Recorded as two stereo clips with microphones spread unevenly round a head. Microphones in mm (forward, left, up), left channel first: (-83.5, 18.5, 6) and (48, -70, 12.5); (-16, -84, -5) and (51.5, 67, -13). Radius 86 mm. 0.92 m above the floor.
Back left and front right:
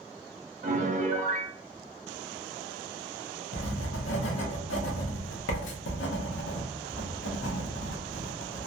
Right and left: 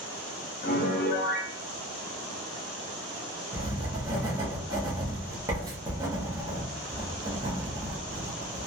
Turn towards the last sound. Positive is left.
turn(degrees=135)